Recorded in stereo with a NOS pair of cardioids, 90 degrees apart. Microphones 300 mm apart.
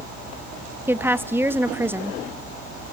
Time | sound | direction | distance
0.9 | a woman speaking | 5° right | 1.3 m